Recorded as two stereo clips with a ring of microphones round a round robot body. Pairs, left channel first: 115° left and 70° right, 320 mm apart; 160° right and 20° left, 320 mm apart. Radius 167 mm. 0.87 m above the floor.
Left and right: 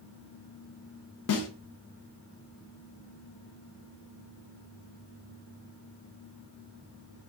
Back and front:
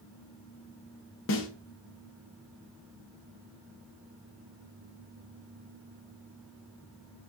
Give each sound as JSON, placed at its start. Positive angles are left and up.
{"t": 1.3, "sound": "a snare drum", "azimuth_deg": 155, "distance_m": 0.8}